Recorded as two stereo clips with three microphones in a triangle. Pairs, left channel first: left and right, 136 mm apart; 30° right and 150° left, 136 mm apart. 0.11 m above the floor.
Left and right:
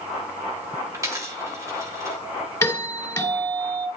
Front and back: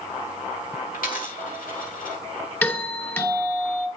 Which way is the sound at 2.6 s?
35° left.